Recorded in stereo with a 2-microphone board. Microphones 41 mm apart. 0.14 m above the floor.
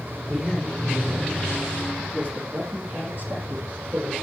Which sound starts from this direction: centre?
A man speaking, at 0.3 s.